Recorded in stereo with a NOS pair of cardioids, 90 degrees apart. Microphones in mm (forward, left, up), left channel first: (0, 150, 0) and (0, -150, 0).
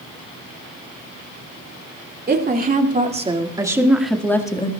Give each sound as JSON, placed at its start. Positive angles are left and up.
{"t": 2.3, "sound": "a woman speaking", "azimuth_deg": -30, "distance_m": 2.5}